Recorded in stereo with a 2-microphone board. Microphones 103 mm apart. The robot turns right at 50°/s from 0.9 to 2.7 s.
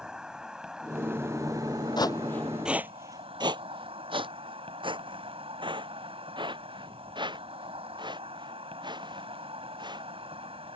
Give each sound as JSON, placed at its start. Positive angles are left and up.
{"t": 0.0, "sound": "an insect", "azimuth_deg": -170}
{"t": 2.0, "sound": "footsteps", "side_deg": 45}